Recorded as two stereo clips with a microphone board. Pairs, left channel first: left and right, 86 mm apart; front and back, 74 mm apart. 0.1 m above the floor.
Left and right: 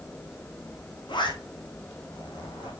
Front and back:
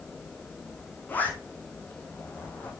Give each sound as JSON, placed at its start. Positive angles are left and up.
{"t": 1.1, "sound": "a zipper", "azimuth_deg": 65, "distance_m": 2.5}